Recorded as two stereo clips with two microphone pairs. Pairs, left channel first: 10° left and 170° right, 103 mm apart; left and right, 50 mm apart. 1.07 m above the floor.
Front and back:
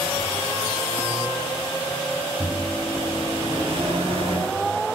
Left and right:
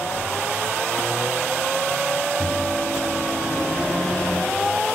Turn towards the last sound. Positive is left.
turn(degrees=165)